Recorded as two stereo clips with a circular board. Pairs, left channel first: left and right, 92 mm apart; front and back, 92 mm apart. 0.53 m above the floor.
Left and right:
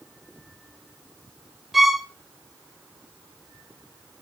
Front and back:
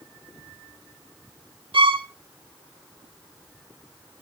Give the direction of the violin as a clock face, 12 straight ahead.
6 o'clock.